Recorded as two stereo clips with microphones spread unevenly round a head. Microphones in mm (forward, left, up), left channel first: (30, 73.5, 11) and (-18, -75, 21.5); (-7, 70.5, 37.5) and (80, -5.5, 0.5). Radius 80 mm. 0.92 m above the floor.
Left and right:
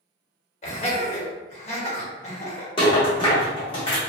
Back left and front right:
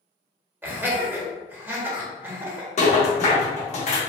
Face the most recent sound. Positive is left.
turn(degrees=130)